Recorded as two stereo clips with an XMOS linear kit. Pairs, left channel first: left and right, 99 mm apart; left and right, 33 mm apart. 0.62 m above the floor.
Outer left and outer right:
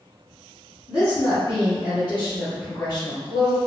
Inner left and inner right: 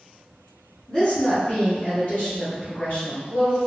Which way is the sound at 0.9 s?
45° left (ahead or behind).